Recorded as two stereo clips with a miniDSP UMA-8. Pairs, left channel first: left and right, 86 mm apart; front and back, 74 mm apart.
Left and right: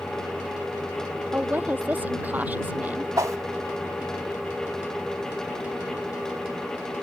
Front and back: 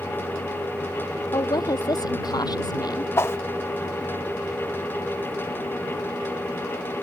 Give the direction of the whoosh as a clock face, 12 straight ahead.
2 o'clock.